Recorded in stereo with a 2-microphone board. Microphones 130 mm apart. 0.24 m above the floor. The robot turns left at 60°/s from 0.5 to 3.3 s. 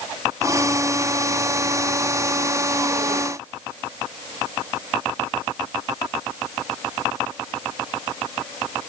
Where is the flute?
No flute in this recording.